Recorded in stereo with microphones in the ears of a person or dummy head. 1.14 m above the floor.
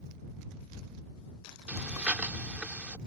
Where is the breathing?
10° right (ahead or behind).